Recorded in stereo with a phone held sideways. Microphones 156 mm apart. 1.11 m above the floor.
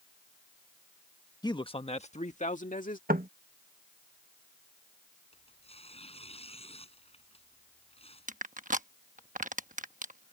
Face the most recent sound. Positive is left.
turn(degrees=-55)  # may be behind; listen again after turning